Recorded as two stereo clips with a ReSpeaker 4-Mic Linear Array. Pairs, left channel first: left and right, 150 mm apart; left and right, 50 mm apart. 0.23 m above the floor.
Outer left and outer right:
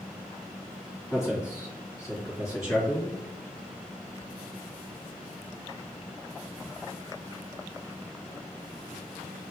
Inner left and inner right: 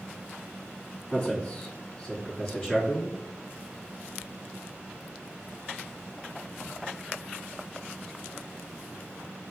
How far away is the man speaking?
About 1.8 m.